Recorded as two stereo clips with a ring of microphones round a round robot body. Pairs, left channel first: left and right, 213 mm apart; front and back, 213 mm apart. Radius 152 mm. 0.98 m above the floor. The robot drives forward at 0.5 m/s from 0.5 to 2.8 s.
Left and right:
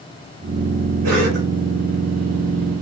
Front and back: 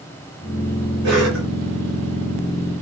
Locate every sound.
1.0 s a cough: 125° right, 4.5 m